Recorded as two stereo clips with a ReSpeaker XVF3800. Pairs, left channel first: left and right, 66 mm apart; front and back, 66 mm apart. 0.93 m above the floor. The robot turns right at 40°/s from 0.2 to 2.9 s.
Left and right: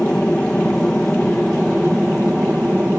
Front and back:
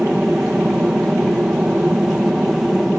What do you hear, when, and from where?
0.0 s an aircraft: 135° left; by 3.0 s 120° right